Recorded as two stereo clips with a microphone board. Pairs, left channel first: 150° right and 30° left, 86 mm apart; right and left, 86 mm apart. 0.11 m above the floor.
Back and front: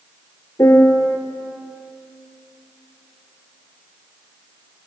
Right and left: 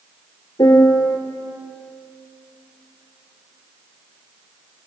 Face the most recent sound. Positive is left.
turn(degrees=-105)